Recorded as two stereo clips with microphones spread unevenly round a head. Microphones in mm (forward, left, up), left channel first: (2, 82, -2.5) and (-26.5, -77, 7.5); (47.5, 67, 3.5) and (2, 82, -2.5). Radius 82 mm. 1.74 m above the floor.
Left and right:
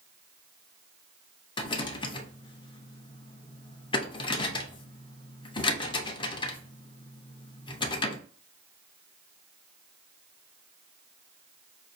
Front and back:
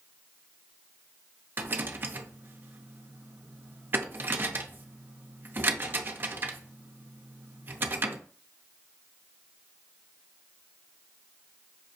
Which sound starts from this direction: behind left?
A rattle, at 1.6 s.